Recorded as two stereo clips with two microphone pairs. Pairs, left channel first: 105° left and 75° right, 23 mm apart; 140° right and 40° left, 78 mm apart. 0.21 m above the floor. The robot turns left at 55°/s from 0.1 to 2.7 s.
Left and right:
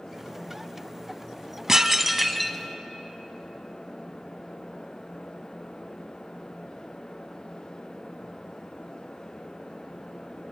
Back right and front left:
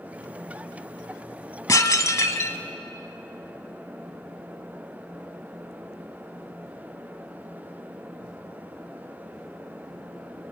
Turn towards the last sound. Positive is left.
turn(degrees=175)